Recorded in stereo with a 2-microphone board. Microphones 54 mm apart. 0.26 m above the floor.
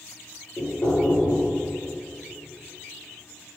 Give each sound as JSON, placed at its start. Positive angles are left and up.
{"t": 0.6, "sound": "knocking", "side_deg": 55, "distance_m": 3.0}